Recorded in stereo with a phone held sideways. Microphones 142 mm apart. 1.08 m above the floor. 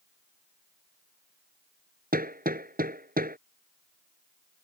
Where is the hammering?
90° right.